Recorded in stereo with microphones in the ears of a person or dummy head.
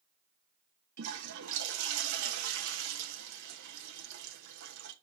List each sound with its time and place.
1.0 s a toilet flushing: 60° right (ahead or behind), 1.2 m